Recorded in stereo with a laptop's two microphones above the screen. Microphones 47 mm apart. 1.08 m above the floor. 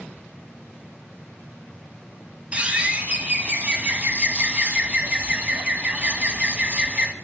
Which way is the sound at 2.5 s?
25° right (ahead or behind).